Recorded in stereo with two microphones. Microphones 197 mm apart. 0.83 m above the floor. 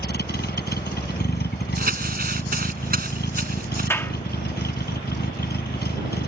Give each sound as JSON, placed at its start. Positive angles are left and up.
{"t": 0.0, "sound": "a vehicle", "side_deg": 55}
{"t": 1.8, "sound": "crumpling", "side_deg": -50}
{"t": 3.9, "sound": "a clap", "side_deg": 10}